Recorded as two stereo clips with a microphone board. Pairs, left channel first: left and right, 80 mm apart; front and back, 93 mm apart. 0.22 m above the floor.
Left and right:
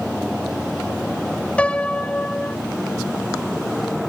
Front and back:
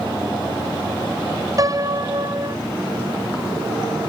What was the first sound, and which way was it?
A piano, 160° left.